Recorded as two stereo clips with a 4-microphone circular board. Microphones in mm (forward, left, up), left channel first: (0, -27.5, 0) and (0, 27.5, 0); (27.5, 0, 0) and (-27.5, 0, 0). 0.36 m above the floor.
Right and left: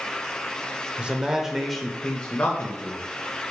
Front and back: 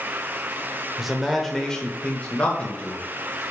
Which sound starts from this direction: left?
A man speaking, at 1.0 s.